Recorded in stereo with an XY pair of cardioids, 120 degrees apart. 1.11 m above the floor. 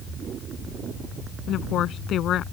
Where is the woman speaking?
60° left.